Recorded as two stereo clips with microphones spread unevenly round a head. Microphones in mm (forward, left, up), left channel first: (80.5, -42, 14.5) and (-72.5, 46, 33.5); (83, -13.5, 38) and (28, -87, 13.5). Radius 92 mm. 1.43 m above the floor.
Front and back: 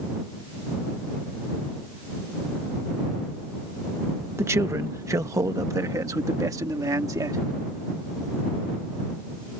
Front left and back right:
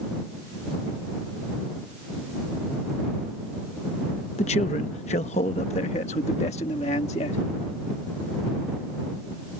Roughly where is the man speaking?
Left.